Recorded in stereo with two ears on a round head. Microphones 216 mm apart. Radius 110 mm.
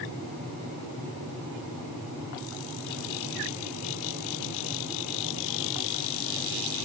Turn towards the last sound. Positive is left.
No sound to turn to.